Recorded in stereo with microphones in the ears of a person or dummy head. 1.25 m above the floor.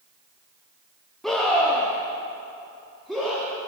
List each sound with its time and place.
1.2 s a scream: centre (ahead or behind), 2 m; by 3.7 s 5° right (ahead or behind), 3.5 m